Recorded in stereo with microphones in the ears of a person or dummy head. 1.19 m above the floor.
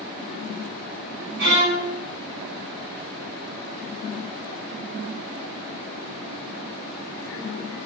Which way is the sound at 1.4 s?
80° right.